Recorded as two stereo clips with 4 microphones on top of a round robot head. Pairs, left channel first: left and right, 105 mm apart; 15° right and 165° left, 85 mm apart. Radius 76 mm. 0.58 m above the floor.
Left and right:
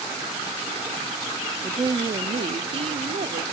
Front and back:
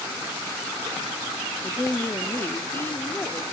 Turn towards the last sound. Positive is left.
turn(degrees=-80)